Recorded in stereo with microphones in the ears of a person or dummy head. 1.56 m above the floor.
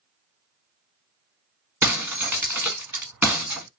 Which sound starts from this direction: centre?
Breaking glass, at 1.8 s.